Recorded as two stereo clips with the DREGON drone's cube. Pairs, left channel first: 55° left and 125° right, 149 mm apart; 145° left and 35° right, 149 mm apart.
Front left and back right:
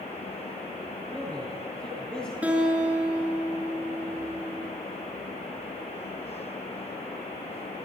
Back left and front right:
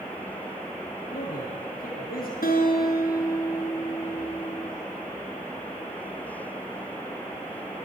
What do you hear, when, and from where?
1.1 s a man speaking: 140° left, 7 m
2.4 s a guitar: 155° left, 4.5 m